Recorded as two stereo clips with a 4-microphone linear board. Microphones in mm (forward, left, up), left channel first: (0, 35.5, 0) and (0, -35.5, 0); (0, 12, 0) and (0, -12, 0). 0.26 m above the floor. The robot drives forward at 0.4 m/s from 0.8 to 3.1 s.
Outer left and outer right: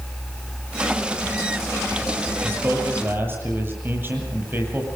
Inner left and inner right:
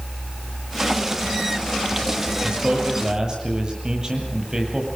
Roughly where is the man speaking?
Right.